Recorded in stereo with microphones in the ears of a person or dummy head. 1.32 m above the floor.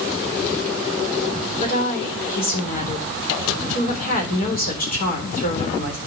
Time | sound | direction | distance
1.6 | a woman speaking | 45° left (ahead or behind) | 3.5 m